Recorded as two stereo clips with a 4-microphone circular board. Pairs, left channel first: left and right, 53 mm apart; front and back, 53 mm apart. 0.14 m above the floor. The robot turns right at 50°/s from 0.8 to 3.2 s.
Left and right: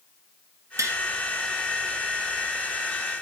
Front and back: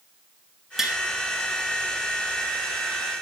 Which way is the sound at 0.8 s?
100° right.